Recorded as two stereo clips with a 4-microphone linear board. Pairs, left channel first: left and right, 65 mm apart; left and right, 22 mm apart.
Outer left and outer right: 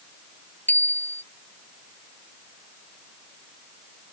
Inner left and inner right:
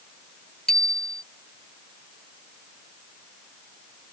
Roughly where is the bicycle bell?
Left.